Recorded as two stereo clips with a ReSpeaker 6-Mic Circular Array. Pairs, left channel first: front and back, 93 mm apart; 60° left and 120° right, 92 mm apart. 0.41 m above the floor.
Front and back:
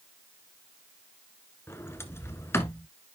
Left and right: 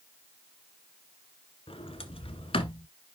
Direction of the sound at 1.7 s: 65° left.